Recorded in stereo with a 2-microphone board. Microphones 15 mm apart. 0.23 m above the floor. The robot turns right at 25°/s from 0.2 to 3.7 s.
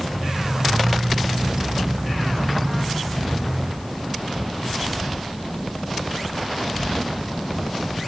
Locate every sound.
Only background noise.